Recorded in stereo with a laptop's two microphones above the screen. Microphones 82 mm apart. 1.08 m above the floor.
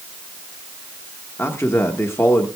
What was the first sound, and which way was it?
A man speaking, 30° left (ahead or behind).